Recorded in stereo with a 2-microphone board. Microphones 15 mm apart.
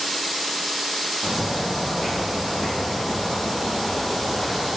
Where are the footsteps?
40° left (ahead or behind), 1.2 m; by 4.7 s 35° left (ahead or behind), 1.1 m.